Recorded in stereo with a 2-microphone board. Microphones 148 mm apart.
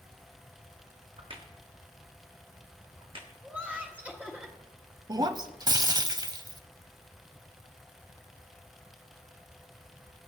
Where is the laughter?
10° right (ahead or behind), 0.9 m.